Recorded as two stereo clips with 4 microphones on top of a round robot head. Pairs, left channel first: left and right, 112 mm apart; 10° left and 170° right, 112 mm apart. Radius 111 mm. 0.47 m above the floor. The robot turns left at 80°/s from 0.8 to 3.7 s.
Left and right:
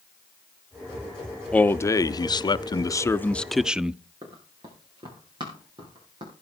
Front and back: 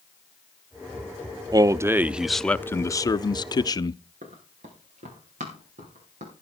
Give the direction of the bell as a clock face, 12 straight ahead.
No bell in this recording.